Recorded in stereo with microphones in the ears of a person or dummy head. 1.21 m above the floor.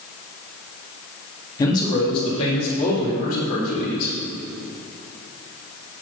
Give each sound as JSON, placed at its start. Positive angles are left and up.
{"t": 1.6, "sound": "a man speaking", "side_deg": 20, "distance_m": 1.8}